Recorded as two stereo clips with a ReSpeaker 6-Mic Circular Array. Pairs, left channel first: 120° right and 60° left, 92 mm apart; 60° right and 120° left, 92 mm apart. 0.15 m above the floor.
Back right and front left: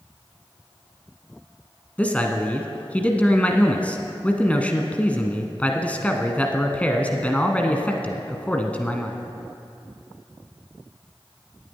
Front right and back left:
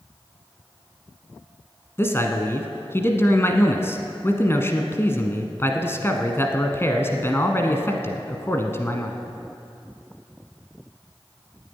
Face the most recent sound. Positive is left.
turn(degrees=-65)